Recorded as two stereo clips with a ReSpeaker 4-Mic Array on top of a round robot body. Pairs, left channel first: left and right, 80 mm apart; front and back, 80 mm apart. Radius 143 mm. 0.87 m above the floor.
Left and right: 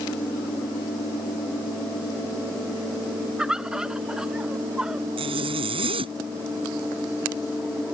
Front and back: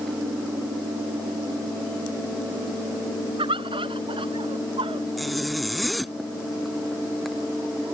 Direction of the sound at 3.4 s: 170° right.